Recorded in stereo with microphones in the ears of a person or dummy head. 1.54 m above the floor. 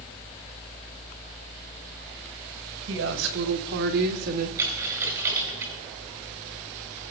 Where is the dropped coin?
15° right (ahead or behind), 1.5 m.